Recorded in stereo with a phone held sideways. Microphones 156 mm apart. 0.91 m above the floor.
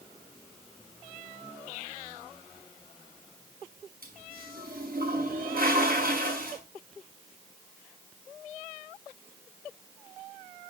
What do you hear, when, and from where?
4.0 s a toilet flushing: 70° right (ahead or behind), 6.5 m